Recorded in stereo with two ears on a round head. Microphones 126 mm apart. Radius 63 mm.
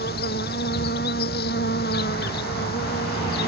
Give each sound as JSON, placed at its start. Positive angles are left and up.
{"t": 0.0, "sound": "an insect", "side_deg": 80}